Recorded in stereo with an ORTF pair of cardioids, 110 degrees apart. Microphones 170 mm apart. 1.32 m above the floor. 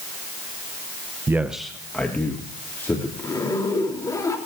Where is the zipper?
20° left, 4 m.